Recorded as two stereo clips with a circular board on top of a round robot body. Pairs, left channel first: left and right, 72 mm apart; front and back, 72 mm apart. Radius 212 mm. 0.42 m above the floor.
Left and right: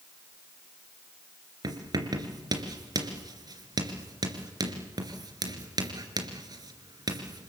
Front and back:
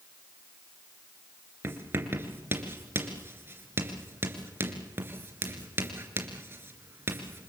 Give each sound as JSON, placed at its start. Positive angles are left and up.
{"t": 1.6, "sound": "writing", "azimuth_deg": -120, "distance_m": 2.5}